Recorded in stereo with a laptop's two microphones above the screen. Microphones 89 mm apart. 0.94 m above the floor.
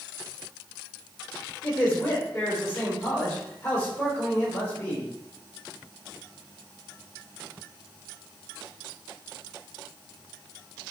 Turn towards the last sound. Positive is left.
turn(degrees=35)  # may be behind; listen again after turning